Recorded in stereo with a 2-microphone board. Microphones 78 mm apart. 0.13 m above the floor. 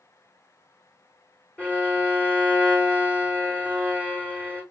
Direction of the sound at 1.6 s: 20° left (ahead or behind).